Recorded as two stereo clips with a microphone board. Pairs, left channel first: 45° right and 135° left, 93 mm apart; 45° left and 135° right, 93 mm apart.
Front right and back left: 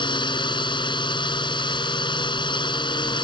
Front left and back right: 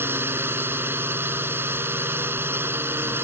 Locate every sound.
0.0 s a drone: 70° right